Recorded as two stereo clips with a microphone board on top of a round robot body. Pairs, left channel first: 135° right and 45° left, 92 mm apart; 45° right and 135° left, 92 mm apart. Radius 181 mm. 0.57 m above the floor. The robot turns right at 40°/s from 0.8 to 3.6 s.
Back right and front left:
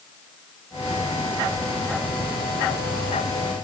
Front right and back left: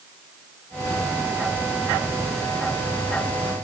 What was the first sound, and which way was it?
Only background noise.